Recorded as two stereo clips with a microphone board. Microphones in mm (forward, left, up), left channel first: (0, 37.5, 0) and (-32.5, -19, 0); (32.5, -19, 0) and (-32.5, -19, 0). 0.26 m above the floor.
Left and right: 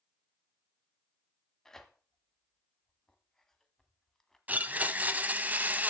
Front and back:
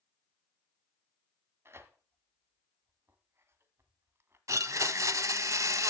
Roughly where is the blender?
Behind.